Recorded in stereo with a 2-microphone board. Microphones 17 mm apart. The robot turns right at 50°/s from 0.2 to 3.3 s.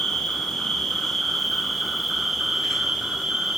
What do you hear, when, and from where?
0.0 s an insect: 90° left, 1.3 m; by 3.6 s 115° right, 1.3 m